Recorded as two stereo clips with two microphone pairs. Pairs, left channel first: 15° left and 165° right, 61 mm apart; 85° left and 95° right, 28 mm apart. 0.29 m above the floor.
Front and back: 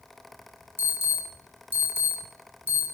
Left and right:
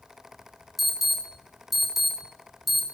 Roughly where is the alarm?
Behind.